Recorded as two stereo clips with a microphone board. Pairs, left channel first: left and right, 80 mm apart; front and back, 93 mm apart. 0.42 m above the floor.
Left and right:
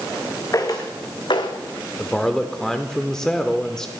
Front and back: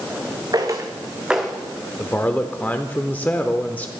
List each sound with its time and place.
0.5 s footsteps: 135° left, 1.8 m; by 1.6 s 85° left, 1.5 m
2.0 s a man speaking: 25° left, 0.8 m